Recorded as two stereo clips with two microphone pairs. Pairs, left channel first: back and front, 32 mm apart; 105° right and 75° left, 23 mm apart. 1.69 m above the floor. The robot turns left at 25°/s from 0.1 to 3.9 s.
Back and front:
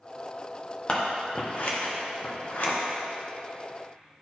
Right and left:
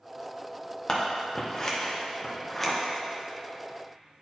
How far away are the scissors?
About 0.9 m.